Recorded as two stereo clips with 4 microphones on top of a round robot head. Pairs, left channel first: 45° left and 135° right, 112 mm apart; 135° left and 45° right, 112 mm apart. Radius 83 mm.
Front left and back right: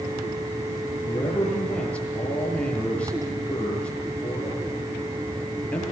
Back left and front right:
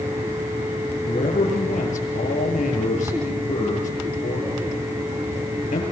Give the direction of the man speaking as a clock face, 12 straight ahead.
8 o'clock.